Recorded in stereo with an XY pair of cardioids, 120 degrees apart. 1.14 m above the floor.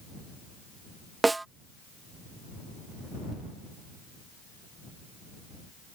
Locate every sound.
1.2 s a snare drum: 15° right